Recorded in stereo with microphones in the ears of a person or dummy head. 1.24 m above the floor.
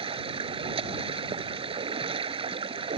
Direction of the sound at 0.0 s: 30° right (ahead or behind).